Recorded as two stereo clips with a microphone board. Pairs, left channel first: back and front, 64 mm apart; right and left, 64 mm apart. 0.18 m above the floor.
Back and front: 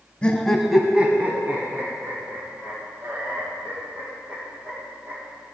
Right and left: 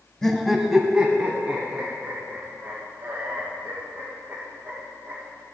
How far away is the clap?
I don't hear a clap.